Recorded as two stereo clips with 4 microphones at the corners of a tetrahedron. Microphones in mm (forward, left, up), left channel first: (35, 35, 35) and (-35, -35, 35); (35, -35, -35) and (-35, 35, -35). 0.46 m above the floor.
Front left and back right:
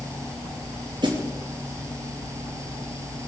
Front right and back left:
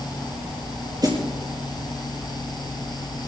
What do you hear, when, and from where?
1.0 s a snare drum: 175° right, 4 m